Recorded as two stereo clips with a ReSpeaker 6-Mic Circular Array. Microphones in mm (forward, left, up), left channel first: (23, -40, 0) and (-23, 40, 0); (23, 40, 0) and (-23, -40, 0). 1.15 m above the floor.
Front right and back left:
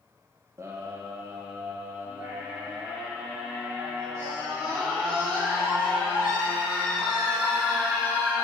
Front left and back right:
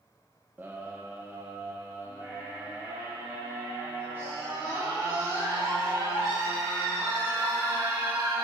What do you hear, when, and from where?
0.6 s a scream: 175° left, 0.7 m